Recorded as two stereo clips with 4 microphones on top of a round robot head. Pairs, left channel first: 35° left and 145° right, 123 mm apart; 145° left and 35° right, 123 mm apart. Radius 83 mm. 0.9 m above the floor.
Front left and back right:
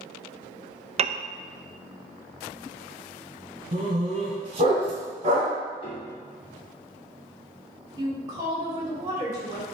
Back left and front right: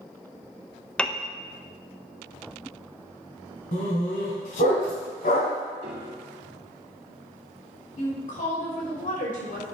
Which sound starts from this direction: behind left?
A woman speaking, at 8.0 s.